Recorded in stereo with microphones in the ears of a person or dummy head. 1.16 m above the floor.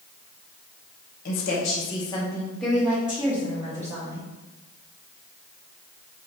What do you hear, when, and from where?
1.2 s a woman speaking: 60° left (ahead or behind), 0.9 m; by 4.2 s 15° right (ahead or behind), 1.8 m